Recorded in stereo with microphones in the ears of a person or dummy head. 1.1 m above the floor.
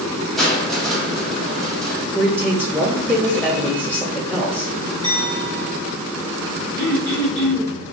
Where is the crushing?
Centre (ahead or behind), 0.6 m.